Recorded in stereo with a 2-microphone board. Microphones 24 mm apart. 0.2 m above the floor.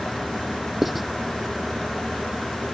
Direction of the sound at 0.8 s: 10° right (ahead or behind).